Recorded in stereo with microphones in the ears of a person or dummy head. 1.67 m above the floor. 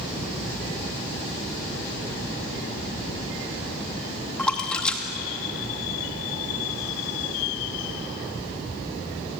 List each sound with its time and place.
4.4 s a splash: 5° left (ahead or behind), 2.5 m